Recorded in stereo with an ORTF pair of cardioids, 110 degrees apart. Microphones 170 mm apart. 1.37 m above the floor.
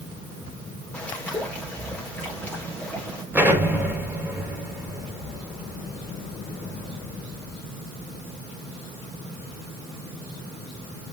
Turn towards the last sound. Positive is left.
turn(degrees=-10)